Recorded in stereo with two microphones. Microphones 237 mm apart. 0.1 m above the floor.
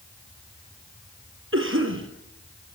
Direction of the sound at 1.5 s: 55° right (ahead or behind).